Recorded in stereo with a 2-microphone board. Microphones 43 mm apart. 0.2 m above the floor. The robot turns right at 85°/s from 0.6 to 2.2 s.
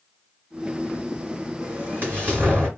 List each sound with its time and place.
1.6 s an explosion: 125° right, 2 m; by 2.7 s 75° right, 2 m